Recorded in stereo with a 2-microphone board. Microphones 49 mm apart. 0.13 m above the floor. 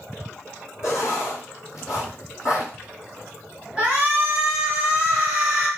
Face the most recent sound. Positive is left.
turn(degrees=-20)  # may be behind; listen again after turning